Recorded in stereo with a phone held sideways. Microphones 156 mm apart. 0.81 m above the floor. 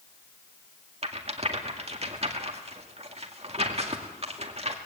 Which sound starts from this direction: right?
A rattle, at 1.0 s.